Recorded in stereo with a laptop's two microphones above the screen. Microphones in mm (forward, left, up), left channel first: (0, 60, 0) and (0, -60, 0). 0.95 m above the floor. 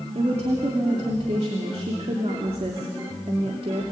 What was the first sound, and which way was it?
A woman speaking, 60° right (ahead or behind).